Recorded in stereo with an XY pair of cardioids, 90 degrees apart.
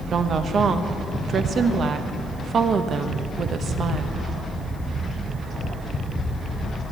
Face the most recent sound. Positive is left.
turn(degrees=-60)